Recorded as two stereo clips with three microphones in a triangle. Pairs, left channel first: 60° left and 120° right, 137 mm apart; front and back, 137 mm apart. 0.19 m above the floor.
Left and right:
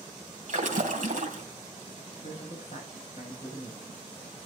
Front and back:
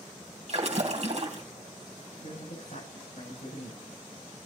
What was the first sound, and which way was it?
A splash, 140° right.